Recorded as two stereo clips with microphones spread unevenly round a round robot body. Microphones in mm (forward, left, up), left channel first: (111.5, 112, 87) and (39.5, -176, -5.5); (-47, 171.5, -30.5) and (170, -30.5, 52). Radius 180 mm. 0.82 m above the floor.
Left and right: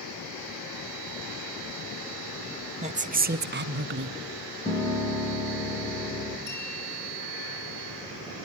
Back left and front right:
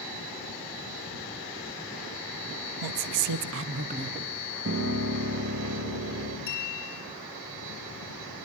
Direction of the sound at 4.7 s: 5° left.